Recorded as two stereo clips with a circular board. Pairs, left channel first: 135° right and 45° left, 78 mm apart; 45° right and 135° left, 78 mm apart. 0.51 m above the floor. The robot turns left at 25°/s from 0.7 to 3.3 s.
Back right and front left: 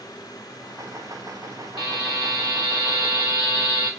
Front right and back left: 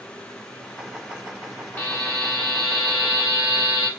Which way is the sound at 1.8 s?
110° right.